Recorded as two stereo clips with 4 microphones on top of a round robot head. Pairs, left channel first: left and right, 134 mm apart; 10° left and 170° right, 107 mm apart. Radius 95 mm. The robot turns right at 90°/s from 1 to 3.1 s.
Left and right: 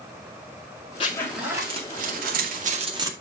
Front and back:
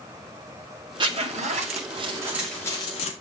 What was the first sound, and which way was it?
A zipper, 145° left.